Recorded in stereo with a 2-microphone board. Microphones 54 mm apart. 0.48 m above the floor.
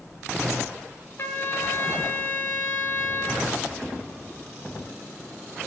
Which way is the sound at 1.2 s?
45° left (ahead or behind).